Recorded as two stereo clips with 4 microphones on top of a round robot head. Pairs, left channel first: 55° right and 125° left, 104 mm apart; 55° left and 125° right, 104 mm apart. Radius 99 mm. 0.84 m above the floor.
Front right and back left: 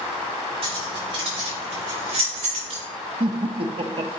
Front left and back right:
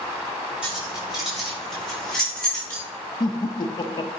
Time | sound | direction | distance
0.6 | keys jangling | 155° left | 4.5 m
3.2 | laughter | 100° left | 0.6 m